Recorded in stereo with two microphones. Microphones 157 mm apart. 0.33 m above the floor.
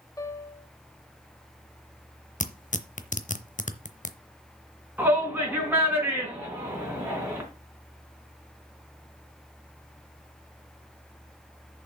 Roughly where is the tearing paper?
Left.